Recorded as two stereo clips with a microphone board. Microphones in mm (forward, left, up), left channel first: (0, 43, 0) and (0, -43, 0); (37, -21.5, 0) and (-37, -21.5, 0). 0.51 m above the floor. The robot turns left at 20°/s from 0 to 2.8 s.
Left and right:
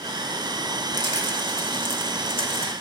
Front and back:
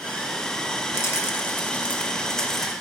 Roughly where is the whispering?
I don't hear whispering.